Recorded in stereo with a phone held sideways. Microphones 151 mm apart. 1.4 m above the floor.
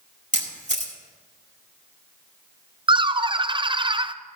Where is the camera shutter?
55° right (ahead or behind), 2 m.